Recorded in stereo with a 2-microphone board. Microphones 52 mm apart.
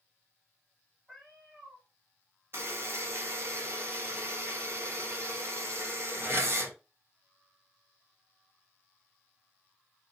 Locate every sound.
1.1 s a cat meowing: 5° right (ahead or behind), 2 m
2.5 s a buzzer: 50° right (ahead or behind), 1.6 m